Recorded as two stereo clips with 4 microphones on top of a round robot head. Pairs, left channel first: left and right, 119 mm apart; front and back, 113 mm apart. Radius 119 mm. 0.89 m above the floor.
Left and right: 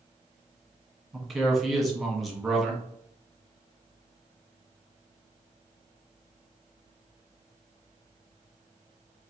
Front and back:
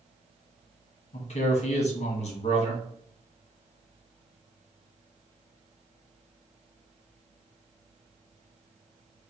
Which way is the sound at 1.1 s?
Straight ahead.